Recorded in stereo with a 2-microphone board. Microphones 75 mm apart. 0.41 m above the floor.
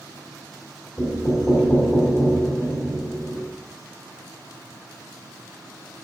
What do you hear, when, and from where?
1.0 s knocking: 35° left (ahead or behind), 2 m